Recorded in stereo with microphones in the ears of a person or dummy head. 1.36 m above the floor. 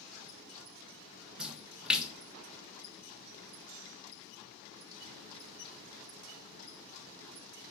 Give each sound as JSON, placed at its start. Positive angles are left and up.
{"t": 1.4, "sound": "a splash", "side_deg": -5, "distance_m": 1.2}